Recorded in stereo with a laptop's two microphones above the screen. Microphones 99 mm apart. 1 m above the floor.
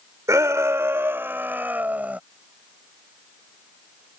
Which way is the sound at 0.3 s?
35° right (ahead or behind).